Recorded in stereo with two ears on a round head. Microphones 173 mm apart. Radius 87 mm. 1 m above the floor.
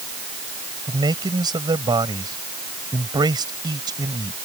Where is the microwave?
No microwave in this recording.